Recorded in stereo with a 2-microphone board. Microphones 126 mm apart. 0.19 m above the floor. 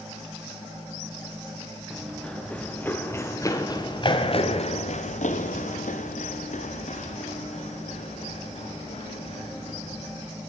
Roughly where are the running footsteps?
Centre.